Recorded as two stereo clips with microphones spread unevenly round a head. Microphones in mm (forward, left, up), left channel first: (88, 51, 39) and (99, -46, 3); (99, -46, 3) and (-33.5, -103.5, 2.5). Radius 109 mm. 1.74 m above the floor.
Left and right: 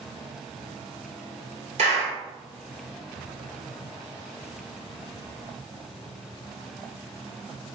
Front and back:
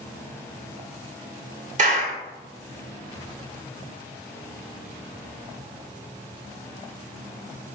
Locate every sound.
1.8 s a clap: 125° right, 1.4 m